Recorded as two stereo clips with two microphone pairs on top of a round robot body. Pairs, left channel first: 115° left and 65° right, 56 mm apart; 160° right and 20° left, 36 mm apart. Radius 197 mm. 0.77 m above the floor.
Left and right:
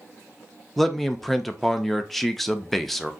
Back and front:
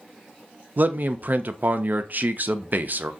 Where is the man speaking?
25° left, 0.6 m.